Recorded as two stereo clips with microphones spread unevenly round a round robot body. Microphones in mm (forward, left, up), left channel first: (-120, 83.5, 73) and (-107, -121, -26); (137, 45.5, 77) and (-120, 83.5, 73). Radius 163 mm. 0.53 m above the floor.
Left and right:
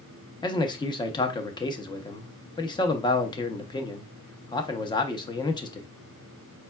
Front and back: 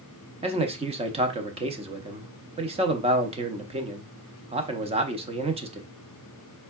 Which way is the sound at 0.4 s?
160° right.